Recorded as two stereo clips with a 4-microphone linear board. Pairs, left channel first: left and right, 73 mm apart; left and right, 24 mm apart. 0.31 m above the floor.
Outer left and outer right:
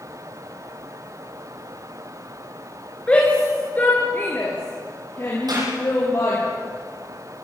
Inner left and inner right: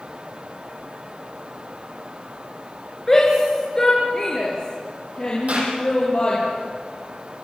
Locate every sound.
3.1 s a shout: 15° left (ahead or behind), 4 m; by 6.4 s 40° left (ahead or behind), 8.5 m
5.5 s a clap: 70° right (ahead or behind), 9.5 m